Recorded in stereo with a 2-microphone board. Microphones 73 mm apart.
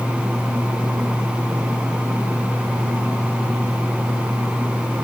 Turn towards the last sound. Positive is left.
No sound to turn to.